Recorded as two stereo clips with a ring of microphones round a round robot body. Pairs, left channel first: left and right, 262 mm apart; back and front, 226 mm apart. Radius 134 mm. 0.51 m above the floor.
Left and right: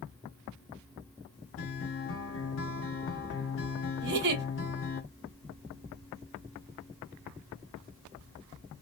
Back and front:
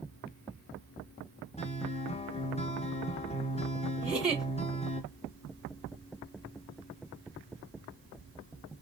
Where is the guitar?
120° left, 1.0 m.